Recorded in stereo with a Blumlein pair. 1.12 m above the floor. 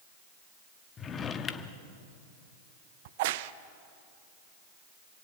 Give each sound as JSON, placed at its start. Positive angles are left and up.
{"t": 1.0, "sound": "a drawer", "azimuth_deg": 20, "distance_m": 1.3}
{"t": 3.0, "sound": "a crack", "azimuth_deg": -50, "distance_m": 0.8}